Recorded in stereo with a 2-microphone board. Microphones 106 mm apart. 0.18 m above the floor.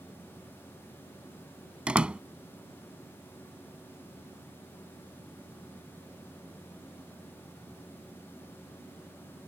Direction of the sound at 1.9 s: 10° right (ahead or behind).